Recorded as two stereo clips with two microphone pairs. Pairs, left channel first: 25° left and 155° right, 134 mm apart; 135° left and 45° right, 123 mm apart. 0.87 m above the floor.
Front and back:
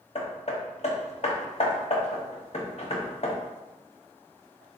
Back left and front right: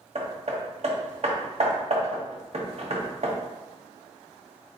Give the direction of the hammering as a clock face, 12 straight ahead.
12 o'clock.